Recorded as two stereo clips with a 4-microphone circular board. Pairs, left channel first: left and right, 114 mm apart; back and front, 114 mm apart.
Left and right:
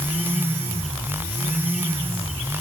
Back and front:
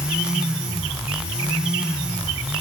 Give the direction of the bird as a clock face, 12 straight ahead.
I don't hear a bird.